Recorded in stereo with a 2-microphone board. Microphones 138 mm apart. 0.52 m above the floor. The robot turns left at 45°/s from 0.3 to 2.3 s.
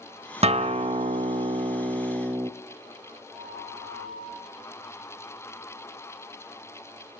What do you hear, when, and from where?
0.4 s a guitar: 70° right, 0.8 m; by 2.5 s 155° right, 0.8 m
3.3 s a flute: 25° right (ahead or behind), 9 m